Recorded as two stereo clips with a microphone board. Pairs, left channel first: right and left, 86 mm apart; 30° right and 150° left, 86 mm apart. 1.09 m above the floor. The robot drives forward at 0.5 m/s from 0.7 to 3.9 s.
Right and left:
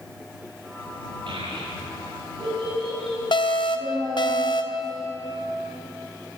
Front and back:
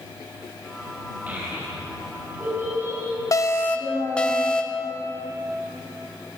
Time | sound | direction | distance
1.3 | a child speaking | 80° left | 4.5 m
3.3 | an alarm | 75° right | 0.6 m